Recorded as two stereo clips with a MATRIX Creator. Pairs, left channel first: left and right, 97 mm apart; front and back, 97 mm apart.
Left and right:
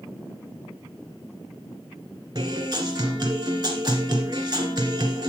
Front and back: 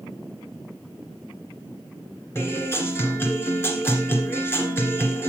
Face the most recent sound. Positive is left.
turn(degrees=-60)